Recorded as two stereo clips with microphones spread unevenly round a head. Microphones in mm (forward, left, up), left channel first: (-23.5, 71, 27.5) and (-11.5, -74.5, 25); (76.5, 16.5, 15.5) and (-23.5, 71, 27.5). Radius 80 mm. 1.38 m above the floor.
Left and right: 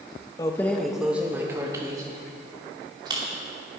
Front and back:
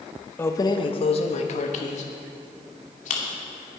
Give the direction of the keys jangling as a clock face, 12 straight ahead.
11 o'clock.